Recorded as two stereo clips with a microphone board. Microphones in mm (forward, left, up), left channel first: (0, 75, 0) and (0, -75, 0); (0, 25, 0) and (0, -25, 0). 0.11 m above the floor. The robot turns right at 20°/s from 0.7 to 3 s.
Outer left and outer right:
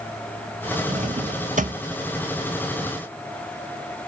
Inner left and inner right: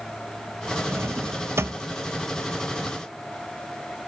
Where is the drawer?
55° right (ahead or behind), 0.6 m; by 1.8 s 65° right (ahead or behind), 0.6 m.